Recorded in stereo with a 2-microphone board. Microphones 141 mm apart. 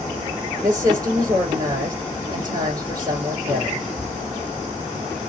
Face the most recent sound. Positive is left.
turn(degrees=-30)  # may be behind; listen again after turning